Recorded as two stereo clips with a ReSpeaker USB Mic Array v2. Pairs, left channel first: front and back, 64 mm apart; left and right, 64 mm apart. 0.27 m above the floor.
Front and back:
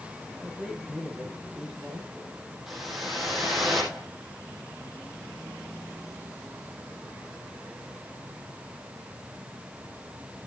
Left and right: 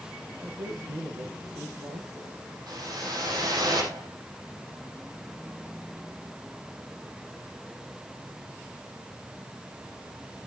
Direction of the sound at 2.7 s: 95° right.